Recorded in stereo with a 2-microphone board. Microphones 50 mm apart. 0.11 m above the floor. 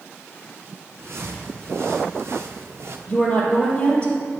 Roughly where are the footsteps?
Right.